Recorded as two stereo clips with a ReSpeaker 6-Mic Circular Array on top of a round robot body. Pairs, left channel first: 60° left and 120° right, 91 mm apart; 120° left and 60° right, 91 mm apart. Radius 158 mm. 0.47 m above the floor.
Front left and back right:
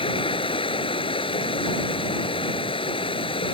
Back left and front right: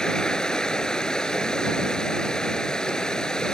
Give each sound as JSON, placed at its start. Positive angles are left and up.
{"t": 0.0, "sound": "running water", "azimuth_deg": 40}